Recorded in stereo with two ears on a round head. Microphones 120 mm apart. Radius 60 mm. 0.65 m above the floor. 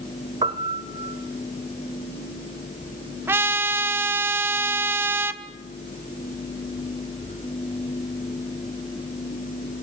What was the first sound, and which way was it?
A piano, 35° right (ahead or behind).